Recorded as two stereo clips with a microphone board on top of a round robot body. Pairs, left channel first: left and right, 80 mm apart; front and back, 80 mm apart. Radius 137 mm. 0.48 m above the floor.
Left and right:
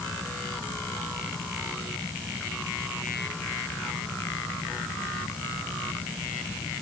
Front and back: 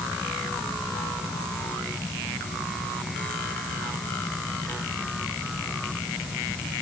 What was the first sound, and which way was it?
Only background noise.